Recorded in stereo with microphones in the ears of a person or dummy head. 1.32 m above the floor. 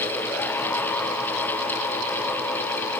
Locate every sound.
Only background noise.